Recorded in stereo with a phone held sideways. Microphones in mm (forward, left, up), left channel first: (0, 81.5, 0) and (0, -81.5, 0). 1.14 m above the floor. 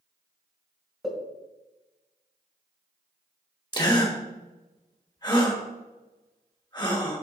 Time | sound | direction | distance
1.0 | a pop | 5° right (ahead or behind) | 2 m
3.7 | a gasp | 25° left (ahead or behind) | 1.3 m